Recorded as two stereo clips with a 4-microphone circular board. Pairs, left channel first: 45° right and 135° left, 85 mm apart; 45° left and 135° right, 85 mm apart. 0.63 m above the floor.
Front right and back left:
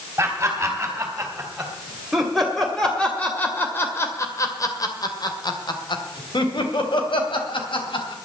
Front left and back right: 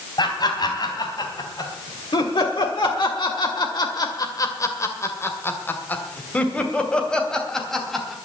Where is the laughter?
70° left, 3.5 m; by 8.1 s 45° right, 3.5 m.